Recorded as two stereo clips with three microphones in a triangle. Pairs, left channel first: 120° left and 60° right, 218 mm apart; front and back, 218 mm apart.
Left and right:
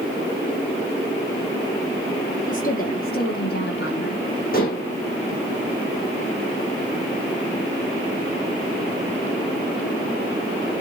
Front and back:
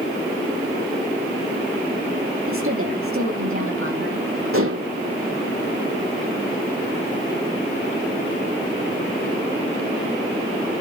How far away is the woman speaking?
About 6 m.